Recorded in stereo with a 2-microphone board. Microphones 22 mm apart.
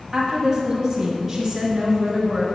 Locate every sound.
0.1 s a woman speaking: 25° right (ahead or behind), 1.1 m; by 2.5 s 5° right (ahead or behind), 2 m